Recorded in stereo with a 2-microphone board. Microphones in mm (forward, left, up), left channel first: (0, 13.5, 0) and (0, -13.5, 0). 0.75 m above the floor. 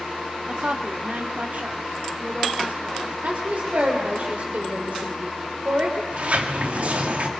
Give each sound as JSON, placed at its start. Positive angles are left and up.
{"t": 0.5, "sound": "a woman speaking", "side_deg": -45, "distance_m": 1.1}
{"t": 3.2, "sound": "a woman speaking", "side_deg": -60, "distance_m": 2.5}
{"t": 6.1, "sound": "a sliding door", "side_deg": -55, "distance_m": 1.7}